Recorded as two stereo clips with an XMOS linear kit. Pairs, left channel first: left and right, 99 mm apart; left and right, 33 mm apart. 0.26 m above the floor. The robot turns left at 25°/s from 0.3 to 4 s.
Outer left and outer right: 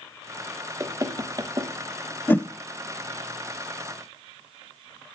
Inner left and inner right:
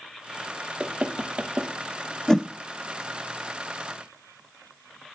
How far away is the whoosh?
About 0.5 m.